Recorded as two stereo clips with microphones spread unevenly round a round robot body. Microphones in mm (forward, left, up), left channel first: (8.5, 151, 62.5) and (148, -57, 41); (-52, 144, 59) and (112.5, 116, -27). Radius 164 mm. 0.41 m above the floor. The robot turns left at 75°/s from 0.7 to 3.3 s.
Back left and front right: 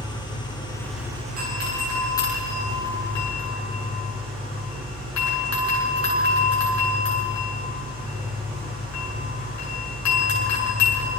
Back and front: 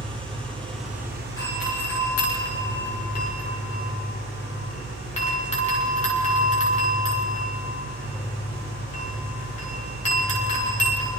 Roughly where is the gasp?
I don't hear a gasp.